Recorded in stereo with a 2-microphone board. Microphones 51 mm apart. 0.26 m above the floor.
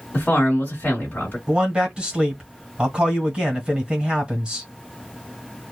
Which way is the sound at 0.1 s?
35° left (ahead or behind).